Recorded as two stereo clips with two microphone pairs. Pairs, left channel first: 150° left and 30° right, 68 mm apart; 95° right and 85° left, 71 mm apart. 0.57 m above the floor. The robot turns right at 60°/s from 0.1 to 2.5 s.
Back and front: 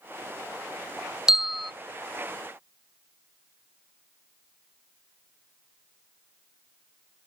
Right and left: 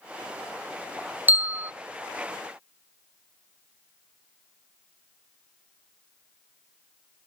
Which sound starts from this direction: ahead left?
A bell, at 1.3 s.